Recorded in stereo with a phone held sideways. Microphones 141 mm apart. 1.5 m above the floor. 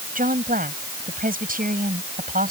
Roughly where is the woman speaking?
Right.